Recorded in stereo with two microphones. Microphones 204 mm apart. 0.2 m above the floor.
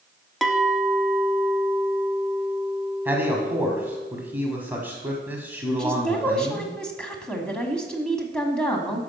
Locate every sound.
0.4 s a clink: centre (ahead or behind), 0.8 m
3.0 s a man speaking: 10° right (ahead or behind), 1.4 m
5.8 s a woman speaking: 5° left (ahead or behind), 1.4 m